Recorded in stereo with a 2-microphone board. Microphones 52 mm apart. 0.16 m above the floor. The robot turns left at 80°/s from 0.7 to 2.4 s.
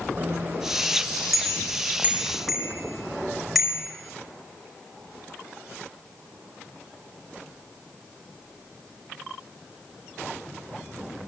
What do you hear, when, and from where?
0.2 s a bicycle bell: 45° right (ahead or behind), 5.5 m; by 3.8 s centre (ahead or behind), 5.5 m